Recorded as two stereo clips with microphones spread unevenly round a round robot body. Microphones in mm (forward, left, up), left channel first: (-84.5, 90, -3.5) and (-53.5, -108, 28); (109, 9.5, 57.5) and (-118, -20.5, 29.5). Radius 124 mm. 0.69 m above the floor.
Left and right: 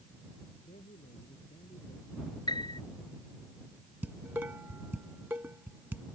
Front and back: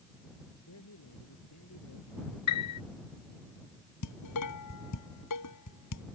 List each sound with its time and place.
0.6 s a man speaking: 30° left
2.5 s a piano: 25° left
4.0 s dishes clattering: straight ahead